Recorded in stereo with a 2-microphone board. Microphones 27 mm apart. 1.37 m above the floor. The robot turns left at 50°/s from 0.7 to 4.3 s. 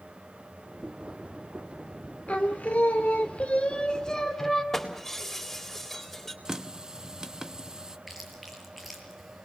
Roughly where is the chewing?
Centre.